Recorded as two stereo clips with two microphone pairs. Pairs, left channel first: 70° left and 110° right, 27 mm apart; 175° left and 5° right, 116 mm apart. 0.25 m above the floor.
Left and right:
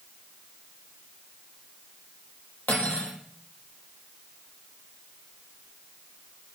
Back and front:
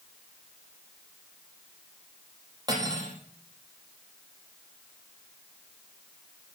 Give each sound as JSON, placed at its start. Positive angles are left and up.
{"t": 2.7, "sound": "cutlery clinking", "azimuth_deg": 55, "distance_m": 5.0}